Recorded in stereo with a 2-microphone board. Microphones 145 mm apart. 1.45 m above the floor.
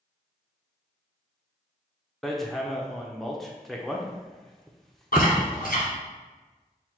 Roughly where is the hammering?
Centre.